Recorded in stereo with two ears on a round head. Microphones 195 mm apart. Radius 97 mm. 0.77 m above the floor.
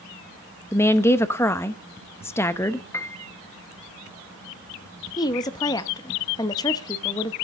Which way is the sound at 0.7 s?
10° left (ahead or behind).